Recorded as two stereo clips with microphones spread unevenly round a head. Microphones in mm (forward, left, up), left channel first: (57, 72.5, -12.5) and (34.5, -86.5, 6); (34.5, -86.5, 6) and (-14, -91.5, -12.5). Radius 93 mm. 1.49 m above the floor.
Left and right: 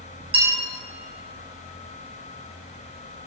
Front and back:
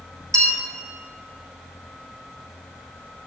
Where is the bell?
160° right, 1.2 m.